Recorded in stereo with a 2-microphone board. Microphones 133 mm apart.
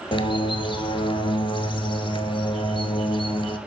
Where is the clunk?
I don't hear a clunk.